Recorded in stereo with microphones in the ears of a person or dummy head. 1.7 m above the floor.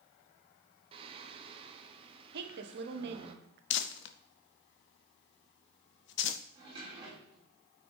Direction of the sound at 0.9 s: 40° right (ahead or behind).